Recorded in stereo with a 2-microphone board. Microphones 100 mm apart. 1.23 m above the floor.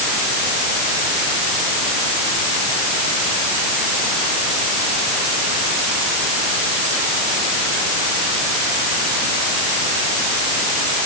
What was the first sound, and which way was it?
Only background noise.